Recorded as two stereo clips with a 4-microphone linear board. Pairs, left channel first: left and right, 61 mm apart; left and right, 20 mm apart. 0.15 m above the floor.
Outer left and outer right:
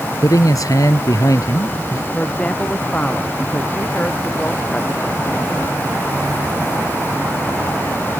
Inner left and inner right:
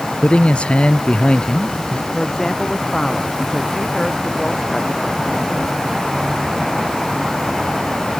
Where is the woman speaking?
20° left (ahead or behind).